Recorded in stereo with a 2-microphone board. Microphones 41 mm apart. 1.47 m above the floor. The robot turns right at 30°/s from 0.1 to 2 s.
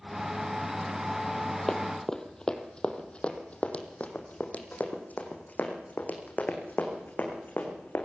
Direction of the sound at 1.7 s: 15° left (ahead or behind).